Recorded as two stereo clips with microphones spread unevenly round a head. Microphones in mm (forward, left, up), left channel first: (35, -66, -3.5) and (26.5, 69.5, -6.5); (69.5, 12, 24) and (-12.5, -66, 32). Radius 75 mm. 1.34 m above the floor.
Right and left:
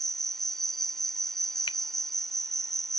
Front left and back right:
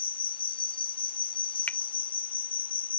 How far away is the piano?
No piano in this recording.